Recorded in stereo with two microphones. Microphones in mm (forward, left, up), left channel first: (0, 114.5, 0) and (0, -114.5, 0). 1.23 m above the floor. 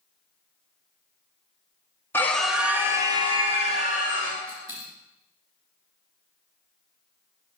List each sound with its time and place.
2.1 s a scream: 10° left (ahead or behind), 1.4 m; by 4.4 s 35° right (ahead or behind), 2.5 m
4.5 s a dropped coin: 60° right (ahead or behind), 4 m